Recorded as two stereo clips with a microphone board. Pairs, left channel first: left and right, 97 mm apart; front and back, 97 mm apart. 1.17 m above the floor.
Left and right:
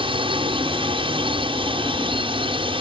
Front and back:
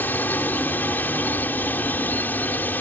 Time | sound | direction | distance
0.0 | a drone | 70° right | ?